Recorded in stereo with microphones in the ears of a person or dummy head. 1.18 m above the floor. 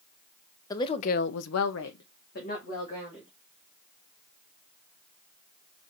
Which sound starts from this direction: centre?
A woman speaking, at 0.7 s.